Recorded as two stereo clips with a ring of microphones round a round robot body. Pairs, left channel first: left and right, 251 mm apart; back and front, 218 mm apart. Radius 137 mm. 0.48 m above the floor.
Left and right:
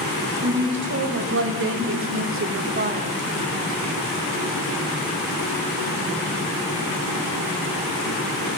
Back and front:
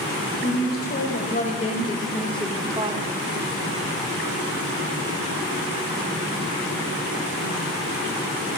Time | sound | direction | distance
0.4 | a woman speaking | 135° right | 3.5 m